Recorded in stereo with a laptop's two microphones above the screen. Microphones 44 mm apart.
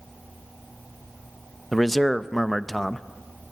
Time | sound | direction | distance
1.7 | a man speaking | 5° left (ahead or behind) | 0.6 m